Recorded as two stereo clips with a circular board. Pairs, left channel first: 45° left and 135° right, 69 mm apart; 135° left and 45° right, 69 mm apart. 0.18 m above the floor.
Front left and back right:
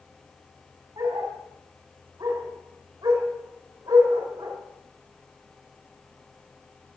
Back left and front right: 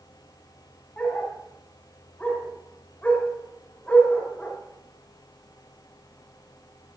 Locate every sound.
1.0 s a dog barking: 155° right, 6 m